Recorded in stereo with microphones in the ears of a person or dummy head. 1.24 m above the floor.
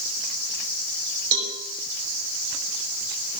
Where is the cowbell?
80° right, 5 m.